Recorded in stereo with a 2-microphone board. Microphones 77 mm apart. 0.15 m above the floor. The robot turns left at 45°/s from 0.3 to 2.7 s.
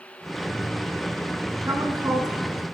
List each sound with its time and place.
1.7 s a woman speaking: 70° right, 1.9 m; by 2.8 s 115° right, 1.9 m